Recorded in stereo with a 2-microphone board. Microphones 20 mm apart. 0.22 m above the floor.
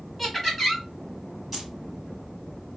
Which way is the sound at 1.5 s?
5° right (ahead or behind).